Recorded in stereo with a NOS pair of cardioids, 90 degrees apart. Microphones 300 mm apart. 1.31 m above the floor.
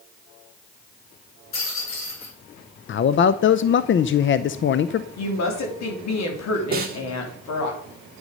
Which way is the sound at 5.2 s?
60° left.